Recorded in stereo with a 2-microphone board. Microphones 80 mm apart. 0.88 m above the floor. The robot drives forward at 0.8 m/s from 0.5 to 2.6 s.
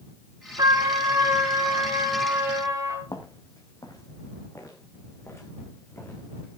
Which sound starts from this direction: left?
Footsteps, at 3.1 s.